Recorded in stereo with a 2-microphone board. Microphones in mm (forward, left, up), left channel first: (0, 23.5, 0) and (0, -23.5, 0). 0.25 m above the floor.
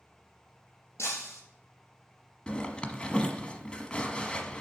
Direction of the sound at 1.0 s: 75° left (ahead or behind).